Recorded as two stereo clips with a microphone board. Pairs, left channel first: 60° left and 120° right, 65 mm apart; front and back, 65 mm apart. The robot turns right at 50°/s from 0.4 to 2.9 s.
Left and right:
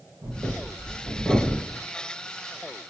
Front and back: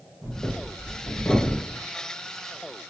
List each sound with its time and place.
0.2 s breathing: 105° right, 1.3 m; by 1.8 s 35° right, 1.3 m